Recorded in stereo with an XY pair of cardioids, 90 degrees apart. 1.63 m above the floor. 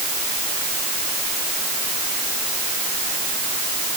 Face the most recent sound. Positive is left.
No sound to turn to.